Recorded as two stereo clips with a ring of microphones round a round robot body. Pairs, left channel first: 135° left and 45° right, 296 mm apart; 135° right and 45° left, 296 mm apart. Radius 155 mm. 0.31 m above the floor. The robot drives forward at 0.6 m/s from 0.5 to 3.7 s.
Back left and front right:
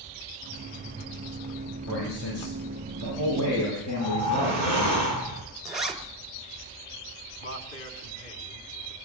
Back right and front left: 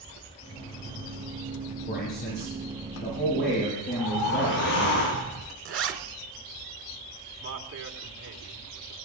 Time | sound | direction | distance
1.9 | a man speaking | 165° left | 8.5 m
3.9 | a whoosh | 155° right | 9.5 m
5.7 | a zipper | 45° left | 1.9 m
7.4 | a man speaking | 90° left | 3 m